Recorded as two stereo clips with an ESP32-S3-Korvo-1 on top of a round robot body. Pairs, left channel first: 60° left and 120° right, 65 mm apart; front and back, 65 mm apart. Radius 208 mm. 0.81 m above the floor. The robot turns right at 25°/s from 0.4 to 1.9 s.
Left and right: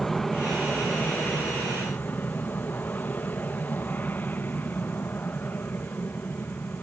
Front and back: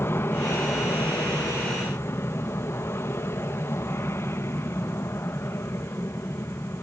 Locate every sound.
0.0 s an aircraft: 25° right; by 6.8 s 15° left